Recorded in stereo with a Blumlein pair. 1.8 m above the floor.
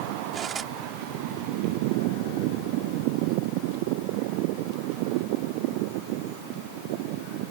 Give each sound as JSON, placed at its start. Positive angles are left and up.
{"t": 0.3, "sound": "cutlery clinking", "azimuth_deg": -20}